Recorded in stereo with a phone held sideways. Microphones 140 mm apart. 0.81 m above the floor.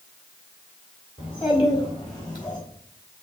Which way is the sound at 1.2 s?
45° left (ahead or behind).